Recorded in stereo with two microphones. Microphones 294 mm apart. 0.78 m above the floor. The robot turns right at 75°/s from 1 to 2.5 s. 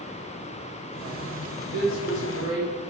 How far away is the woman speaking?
About 3 m.